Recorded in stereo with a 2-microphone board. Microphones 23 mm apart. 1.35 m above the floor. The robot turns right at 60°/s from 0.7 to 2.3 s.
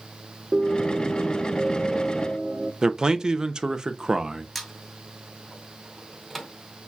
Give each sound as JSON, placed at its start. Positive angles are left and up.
{"t": 0.5, "sound": "a piano", "azimuth_deg": -105, "distance_m": 1.0}
{"t": 2.8, "sound": "a man speaking", "side_deg": -35, "distance_m": 0.7}
{"t": 4.5, "sound": "a squeak", "side_deg": 5, "distance_m": 2.0}